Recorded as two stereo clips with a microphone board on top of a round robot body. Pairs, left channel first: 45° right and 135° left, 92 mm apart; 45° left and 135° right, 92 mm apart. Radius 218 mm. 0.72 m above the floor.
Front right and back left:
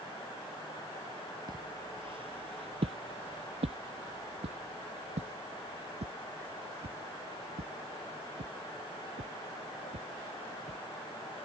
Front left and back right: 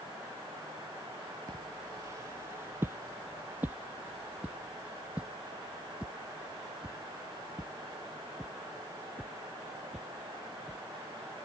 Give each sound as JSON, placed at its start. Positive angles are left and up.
{"t": 1.5, "sound": "footsteps", "azimuth_deg": 175}